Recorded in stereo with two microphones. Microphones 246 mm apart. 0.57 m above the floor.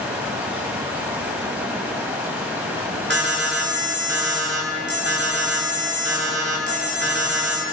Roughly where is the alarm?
Right.